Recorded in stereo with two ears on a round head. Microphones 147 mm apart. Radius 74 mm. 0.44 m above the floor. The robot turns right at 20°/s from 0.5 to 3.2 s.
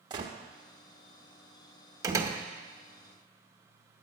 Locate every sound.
0.1 s a gunshot: 25° right (ahead or behind), 0.9 m
2.0 s a door slam: 20° right (ahead or behind), 0.9 m